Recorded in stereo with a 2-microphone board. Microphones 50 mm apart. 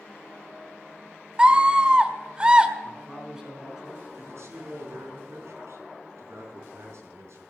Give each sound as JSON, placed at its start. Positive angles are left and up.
{"t": 1.4, "sound": "a scream", "side_deg": -20, "distance_m": 1.0}
{"t": 2.8, "sound": "a man speaking", "side_deg": -10, "distance_m": 4.0}
{"t": 4.2, "sound": "a man speaking", "side_deg": -65, "distance_m": 4.0}